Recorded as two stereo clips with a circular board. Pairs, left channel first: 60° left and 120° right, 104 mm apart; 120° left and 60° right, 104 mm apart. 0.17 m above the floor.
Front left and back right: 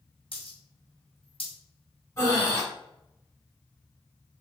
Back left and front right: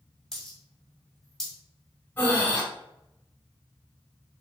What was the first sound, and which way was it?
A dropped coin, 35° left.